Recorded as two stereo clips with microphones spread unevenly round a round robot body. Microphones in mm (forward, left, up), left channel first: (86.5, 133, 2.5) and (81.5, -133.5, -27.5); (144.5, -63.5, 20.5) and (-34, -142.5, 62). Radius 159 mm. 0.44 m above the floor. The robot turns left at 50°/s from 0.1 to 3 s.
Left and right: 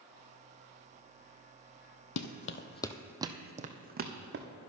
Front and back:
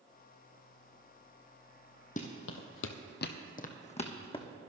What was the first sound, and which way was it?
Running footsteps, 95° left.